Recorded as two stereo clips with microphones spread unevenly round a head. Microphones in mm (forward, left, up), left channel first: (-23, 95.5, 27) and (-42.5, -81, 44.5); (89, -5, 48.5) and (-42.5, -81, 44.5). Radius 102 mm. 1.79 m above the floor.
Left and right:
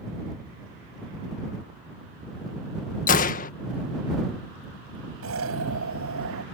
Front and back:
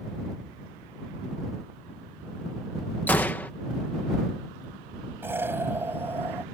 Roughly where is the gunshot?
Left.